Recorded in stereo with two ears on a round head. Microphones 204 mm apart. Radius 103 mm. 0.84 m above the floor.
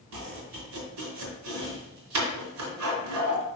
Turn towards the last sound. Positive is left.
turn(degrees=-85)